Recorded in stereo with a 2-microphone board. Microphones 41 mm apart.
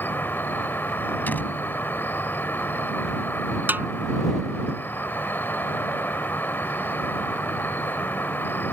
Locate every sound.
0.0 s an insect: 65° left (ahead or behind)
1.3 s a door slam: 55° left (ahead or behind)
3.7 s a snare drum: 55° right (ahead or behind)